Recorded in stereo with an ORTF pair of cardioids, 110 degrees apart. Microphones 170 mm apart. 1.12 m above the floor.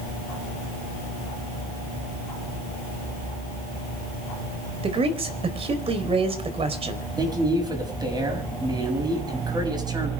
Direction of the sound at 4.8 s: 35° right.